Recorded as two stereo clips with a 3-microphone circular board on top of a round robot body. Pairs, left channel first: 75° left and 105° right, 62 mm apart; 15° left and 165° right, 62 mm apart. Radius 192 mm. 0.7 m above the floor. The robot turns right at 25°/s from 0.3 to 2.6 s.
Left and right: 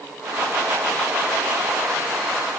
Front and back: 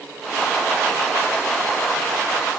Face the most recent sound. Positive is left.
No sound to turn to.